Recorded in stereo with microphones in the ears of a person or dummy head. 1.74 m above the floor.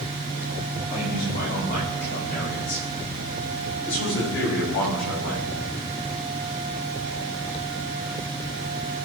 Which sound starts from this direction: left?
A man speaking, at 0.9 s.